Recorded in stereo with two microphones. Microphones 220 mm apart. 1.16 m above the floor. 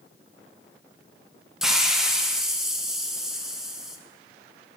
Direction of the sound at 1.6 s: Centre (ahead or behind).